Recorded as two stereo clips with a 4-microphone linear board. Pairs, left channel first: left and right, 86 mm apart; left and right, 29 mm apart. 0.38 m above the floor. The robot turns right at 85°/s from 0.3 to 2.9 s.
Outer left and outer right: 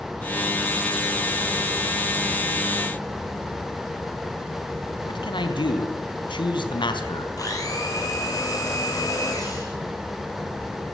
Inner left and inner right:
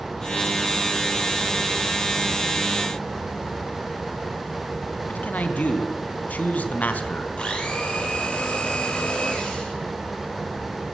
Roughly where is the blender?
Left.